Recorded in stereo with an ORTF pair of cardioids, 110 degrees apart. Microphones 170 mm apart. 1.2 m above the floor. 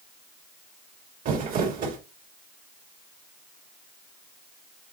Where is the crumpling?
60° right, 3 m.